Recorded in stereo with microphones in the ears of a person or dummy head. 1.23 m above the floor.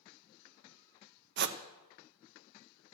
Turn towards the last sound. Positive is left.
turn(degrees=-55)  # may be behind; listen again after turning